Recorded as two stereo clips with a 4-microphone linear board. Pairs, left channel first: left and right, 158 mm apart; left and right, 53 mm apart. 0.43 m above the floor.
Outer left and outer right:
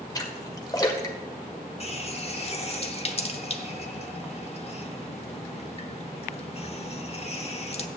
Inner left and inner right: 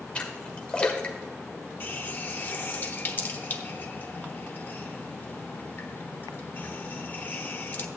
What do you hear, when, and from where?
0.1 s a splash: 25° left (ahead or behind), 1.4 m
1.8 s a running tap: 40° left (ahead or behind), 0.8 m